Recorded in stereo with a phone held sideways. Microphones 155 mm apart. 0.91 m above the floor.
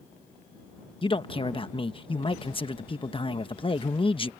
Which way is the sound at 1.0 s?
35° left (ahead or behind).